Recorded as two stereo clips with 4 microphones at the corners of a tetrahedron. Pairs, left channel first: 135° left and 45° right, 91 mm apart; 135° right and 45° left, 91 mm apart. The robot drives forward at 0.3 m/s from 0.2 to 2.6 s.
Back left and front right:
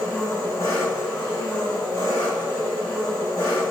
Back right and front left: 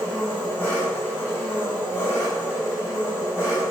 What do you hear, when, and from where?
0.0 s an engine running: 160° left, 1.4 m; by 3.7 s 170° left, 1.9 m